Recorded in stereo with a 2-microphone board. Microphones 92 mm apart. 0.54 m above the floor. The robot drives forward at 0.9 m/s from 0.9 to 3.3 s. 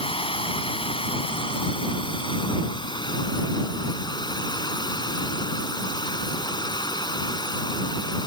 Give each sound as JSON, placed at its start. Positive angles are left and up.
{"t": 0.0, "sound": "running water", "side_deg": 80}